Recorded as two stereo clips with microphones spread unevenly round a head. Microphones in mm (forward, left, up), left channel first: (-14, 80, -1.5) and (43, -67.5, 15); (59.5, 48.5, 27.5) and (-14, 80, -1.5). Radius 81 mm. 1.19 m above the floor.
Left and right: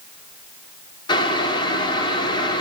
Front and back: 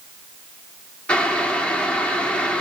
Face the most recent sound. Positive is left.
turn(degrees=50)